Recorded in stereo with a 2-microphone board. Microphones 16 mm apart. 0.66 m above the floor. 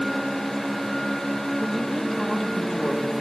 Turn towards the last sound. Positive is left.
turn(degrees=15)  # may be behind; listen again after turning